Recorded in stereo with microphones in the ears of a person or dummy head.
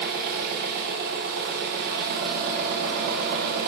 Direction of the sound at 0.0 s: 50° right (ahead or behind).